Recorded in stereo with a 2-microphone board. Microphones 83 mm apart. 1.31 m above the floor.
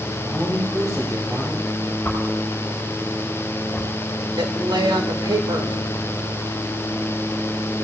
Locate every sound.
0.2 s a man speaking: 65° right (ahead or behind), 6 m
2.0 s a whoosh: 15° left (ahead or behind), 5.5 m
4.4 s a woman speaking: 70° right (ahead or behind), 1.9 m